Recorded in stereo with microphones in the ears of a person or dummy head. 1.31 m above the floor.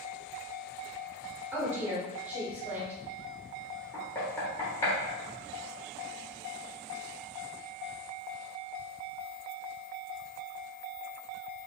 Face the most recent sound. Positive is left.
turn(degrees=15)  # may be behind; listen again after turning